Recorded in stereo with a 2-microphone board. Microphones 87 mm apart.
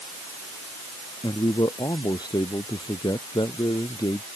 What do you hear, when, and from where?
1.2 s a man speaking: 55° left (ahead or behind)